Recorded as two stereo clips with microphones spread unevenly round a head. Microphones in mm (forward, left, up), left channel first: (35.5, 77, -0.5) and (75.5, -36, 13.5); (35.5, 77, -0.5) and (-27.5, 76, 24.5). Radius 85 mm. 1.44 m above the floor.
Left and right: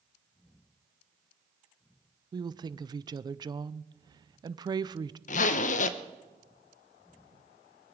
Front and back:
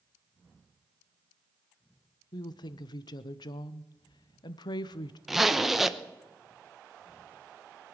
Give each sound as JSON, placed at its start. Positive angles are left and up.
{"t": 2.3, "sound": "a woman speaking", "azimuth_deg": -15, "distance_m": 0.5}
{"t": 5.3, "sound": "a zipper", "azimuth_deg": 105, "distance_m": 0.8}